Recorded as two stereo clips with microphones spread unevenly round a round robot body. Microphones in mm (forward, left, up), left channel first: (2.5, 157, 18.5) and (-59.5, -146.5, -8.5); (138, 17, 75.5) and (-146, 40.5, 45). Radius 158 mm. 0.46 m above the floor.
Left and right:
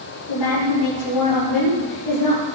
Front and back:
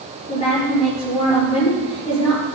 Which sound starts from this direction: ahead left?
A woman speaking, at 0.3 s.